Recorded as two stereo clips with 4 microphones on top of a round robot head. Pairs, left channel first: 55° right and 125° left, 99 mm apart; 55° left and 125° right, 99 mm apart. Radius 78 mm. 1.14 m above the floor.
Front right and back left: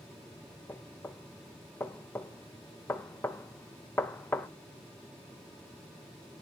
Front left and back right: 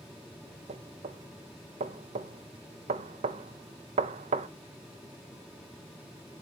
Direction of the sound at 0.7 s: 125° right.